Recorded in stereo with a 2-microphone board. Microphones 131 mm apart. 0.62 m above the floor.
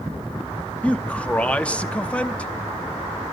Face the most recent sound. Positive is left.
turn(degrees=10)  # may be behind; listen again after turning